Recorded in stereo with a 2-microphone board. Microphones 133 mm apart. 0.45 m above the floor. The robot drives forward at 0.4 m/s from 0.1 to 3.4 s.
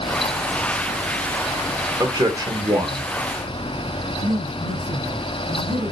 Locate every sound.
2.0 s a man speaking: 30° right (ahead or behind), 1.0 m; by 3.1 s 25° right (ahead or behind), 1.1 m
4.2 s a woman speaking: 65° right (ahead or behind), 2.5 m